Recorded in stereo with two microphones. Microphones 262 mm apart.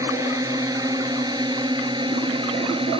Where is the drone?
10° right (ahead or behind); by 3.0 s 20° right (ahead or behind).